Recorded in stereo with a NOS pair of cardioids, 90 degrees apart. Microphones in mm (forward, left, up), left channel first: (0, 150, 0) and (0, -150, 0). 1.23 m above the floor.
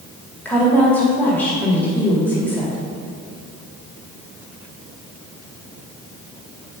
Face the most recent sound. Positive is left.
turn(degrees=5)